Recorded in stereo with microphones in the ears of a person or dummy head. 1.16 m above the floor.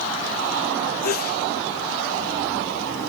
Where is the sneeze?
50° left (ahead or behind), 1.9 m.